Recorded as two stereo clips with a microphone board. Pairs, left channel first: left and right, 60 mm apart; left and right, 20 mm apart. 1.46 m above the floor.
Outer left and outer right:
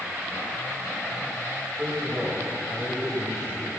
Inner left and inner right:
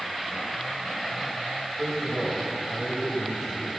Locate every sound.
1.8 s a man speaking: 10° right (ahead or behind), 8 m